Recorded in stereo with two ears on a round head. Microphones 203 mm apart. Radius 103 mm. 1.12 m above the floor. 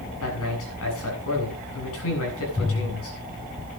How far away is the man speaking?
About 8.5 m.